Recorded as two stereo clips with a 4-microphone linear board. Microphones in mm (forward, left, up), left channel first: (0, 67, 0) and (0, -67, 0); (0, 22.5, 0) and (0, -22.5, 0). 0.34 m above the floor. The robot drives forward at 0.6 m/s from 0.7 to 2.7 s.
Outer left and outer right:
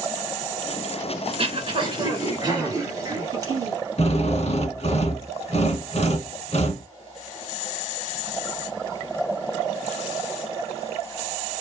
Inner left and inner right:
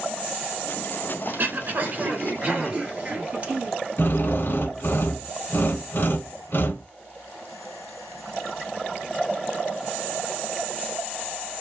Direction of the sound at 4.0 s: 55° left (ahead or behind).